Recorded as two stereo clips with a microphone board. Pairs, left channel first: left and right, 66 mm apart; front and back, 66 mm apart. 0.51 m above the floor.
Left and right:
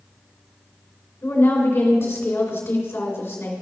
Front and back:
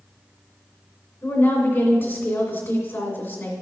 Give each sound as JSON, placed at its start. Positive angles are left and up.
{"t": 1.2, "sound": "a woman speaking", "azimuth_deg": 45, "distance_m": 2.5}